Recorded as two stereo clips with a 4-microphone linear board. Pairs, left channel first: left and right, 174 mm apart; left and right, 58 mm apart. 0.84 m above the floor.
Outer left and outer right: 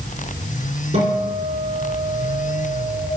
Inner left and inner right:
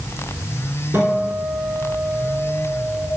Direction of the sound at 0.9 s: 35° right (ahead or behind).